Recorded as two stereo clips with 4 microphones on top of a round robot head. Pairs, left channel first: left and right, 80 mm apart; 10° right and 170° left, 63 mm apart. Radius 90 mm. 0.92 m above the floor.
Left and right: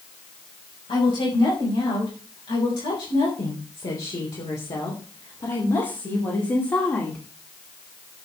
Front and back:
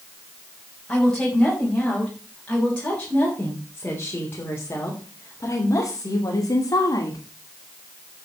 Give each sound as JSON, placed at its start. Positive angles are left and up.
{"t": 0.9, "sound": "a woman speaking", "azimuth_deg": 75, "distance_m": 5.5}